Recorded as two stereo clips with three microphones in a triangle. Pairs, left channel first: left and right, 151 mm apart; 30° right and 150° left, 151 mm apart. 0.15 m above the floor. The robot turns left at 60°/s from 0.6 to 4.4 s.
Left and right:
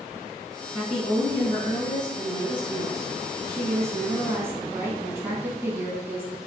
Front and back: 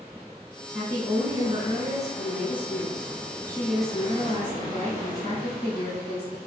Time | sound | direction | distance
0.7 | a woman speaking | 170° right | 1.2 m